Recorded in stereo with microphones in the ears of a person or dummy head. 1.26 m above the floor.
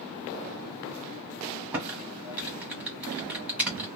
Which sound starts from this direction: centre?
Typing on a keyboard, at 1.7 s.